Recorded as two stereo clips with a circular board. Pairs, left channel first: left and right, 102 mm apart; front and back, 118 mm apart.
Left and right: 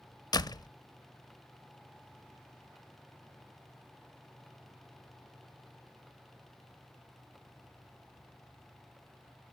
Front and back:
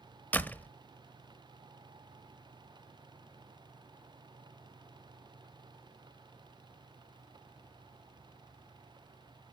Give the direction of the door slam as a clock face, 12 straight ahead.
10 o'clock.